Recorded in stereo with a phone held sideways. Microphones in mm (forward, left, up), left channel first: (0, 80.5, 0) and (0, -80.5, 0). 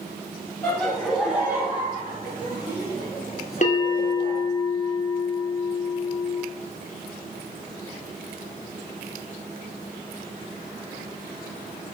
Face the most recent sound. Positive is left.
turn(degrees=50)  # may be behind; listen again after turning